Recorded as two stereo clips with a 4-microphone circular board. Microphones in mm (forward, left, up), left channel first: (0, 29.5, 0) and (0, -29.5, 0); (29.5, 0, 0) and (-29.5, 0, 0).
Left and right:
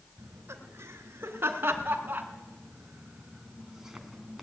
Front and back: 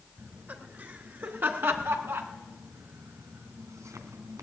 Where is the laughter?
120° right, 4.5 m; by 4.4 s straight behind, 3 m.